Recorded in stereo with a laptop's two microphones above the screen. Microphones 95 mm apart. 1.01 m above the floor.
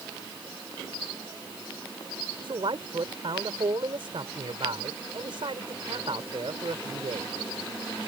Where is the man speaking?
60° right (ahead or behind).